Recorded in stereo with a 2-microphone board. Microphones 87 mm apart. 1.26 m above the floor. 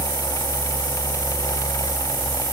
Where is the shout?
I don't hear a shout.